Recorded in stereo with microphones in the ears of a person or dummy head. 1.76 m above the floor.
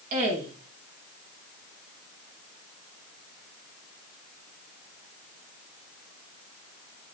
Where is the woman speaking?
50° right (ahead or behind), 7 m.